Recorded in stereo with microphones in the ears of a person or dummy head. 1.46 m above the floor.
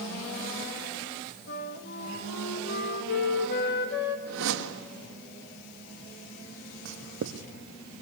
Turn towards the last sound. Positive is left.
turn(degrees=-55)  # may be behind; listen again after turning